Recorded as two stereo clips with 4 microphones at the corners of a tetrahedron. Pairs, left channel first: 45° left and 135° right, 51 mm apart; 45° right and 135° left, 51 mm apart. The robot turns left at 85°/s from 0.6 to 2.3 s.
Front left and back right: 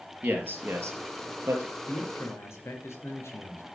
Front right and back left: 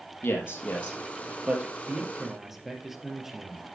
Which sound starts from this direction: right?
A man speaking, at 0.2 s.